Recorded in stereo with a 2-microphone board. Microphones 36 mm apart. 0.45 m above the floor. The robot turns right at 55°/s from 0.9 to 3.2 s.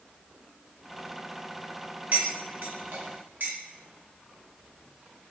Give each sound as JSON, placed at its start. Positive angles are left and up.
{"t": 2.1, "sound": "cutlery clinking", "side_deg": -40, "distance_m": 0.8}